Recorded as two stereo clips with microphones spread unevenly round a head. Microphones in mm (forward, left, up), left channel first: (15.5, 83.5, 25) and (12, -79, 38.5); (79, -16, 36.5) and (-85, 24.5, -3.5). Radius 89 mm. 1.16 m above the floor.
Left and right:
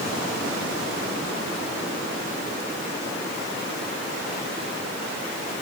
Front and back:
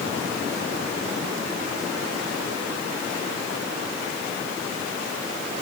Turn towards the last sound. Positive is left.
No sound to turn to.